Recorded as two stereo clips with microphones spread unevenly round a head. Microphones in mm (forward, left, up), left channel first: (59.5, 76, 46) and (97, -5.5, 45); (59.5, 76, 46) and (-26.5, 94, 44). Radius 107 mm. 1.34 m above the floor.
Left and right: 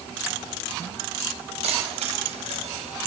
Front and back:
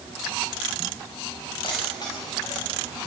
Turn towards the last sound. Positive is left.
turn(degrees=-85)